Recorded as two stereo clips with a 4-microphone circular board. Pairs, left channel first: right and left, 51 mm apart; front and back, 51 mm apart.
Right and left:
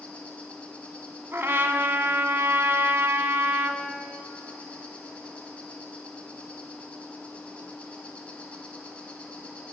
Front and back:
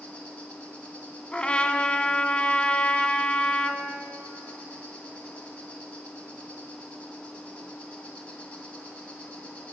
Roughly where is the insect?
Ahead right.